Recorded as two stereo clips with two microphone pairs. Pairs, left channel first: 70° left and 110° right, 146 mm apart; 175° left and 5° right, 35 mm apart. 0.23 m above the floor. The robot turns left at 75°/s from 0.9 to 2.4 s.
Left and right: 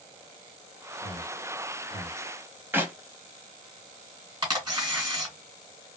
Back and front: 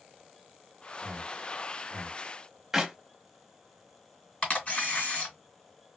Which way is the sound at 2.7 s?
70° right.